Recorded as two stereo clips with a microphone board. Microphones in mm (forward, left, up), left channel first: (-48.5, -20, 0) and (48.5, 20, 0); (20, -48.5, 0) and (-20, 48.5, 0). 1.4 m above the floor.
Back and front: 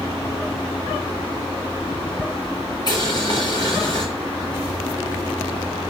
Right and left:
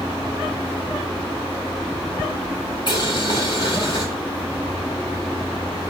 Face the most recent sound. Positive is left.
turn(degrees=-110)